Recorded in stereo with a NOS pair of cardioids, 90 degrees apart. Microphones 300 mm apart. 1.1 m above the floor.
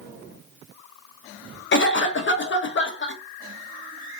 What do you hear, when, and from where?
1.7 s a cough: 35° left, 1.0 m